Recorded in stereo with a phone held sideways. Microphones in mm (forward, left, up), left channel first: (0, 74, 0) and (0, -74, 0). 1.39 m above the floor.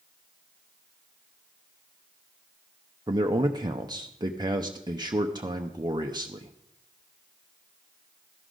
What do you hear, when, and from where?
3.1 s a man speaking: 30° right (ahead or behind), 0.7 m